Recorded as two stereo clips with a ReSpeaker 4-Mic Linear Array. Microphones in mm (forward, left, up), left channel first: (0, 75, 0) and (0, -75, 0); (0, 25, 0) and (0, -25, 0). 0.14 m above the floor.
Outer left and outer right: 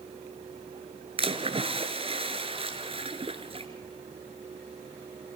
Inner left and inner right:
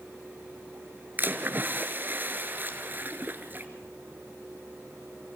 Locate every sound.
1.2 s a splash: 40° right (ahead or behind), 1.9 m